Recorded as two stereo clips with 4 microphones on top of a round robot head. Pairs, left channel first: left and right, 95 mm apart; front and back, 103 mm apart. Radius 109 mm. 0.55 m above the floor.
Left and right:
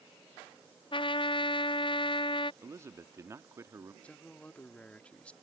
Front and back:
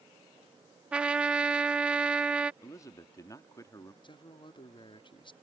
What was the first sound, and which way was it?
A trumpet, 100° left.